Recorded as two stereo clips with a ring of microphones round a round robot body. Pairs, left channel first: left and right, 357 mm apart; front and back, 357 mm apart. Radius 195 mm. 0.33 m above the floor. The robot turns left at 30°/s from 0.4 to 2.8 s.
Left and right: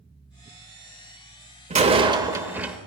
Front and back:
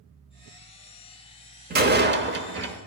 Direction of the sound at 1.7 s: 145° right.